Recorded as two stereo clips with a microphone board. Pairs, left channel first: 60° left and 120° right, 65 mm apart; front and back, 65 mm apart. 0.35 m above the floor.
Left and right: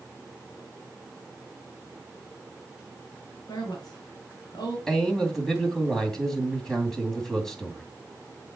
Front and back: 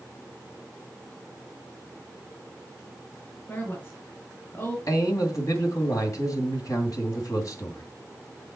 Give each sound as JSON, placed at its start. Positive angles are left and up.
{"t": 3.5, "sound": "a woman speaking", "azimuth_deg": 60, "distance_m": 5.0}
{"t": 4.9, "sound": "a man speaking", "azimuth_deg": -20, "distance_m": 2.5}